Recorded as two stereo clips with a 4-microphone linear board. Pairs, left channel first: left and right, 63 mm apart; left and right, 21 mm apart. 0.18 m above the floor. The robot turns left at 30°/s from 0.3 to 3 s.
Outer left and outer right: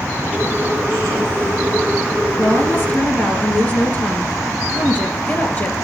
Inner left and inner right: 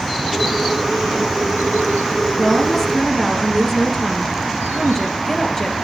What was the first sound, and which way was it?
A woman speaking, 45° left (ahead or behind).